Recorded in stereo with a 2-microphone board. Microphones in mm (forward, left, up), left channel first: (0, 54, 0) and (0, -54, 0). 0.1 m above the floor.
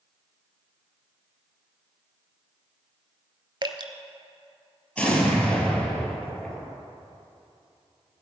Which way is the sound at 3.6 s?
45° right (ahead or behind).